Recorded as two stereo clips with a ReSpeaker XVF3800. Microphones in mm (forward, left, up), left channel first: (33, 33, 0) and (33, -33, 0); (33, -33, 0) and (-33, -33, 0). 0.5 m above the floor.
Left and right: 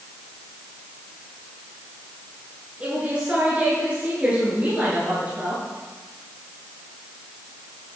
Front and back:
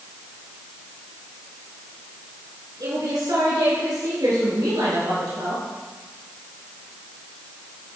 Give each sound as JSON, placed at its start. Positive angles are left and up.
{"t": 2.8, "sound": "a woman speaking", "azimuth_deg": -160, "distance_m": 6.0}